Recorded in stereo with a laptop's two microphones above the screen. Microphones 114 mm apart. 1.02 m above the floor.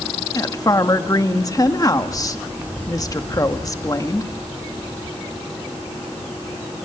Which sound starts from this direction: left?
A woman speaking, at 0.3 s.